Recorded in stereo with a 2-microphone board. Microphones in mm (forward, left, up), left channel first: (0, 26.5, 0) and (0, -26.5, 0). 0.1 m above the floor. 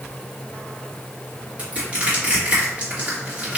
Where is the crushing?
30° right (ahead or behind), 1.9 m.